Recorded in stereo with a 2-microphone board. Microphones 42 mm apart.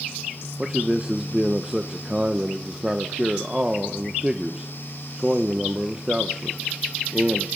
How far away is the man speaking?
About 0.8 m.